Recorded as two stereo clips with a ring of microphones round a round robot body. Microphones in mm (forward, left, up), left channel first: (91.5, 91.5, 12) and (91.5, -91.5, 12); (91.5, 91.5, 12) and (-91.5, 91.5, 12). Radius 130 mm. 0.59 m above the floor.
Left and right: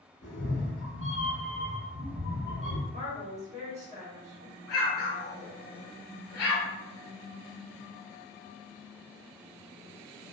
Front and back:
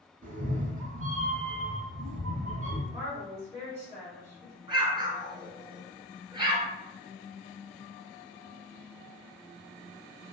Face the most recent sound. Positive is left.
turn(degrees=115)